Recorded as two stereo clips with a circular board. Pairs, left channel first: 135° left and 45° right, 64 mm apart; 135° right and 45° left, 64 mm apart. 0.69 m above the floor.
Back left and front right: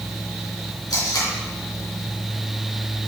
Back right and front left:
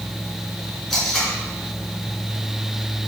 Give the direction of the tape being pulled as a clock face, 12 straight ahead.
7 o'clock.